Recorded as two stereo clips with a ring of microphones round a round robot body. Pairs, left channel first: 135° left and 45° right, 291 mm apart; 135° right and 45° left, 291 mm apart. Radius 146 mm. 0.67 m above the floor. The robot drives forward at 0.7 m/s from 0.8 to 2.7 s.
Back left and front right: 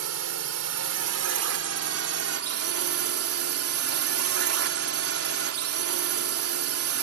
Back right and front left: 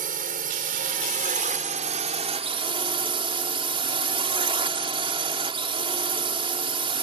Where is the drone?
15° right; by 7.0 s 25° right.